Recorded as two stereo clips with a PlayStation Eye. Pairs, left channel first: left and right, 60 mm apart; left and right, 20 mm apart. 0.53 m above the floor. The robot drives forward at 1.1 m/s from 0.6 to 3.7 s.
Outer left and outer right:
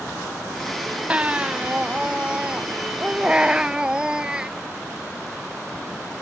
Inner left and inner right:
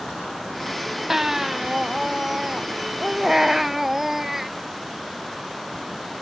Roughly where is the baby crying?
Centre.